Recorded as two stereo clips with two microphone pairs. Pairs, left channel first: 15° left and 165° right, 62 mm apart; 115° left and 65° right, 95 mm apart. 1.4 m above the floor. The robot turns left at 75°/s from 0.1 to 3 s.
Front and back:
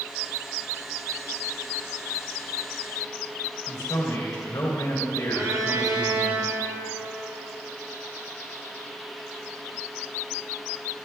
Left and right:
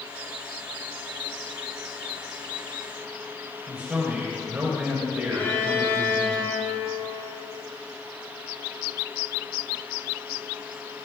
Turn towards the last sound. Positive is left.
turn(degrees=180)